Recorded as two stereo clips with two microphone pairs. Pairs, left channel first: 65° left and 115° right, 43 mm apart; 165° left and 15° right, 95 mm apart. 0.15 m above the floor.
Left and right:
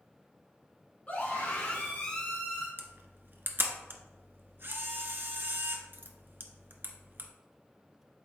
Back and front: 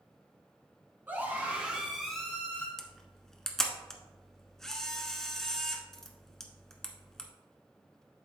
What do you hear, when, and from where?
1.1 s a scream: 40° left, 1.8 m; by 2.7 s 125° left, 1.5 m
2.8 s a camera shutter: 110° right, 1.1 m